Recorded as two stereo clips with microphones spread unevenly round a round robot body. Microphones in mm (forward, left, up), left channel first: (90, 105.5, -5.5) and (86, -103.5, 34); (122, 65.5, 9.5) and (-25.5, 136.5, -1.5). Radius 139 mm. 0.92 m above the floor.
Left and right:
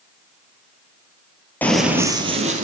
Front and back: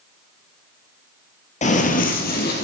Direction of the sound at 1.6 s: Straight ahead.